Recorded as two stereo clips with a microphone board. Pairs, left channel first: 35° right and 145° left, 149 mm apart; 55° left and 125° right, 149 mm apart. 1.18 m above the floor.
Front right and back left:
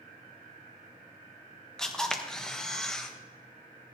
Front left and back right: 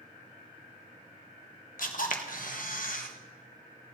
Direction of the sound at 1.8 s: 50° left.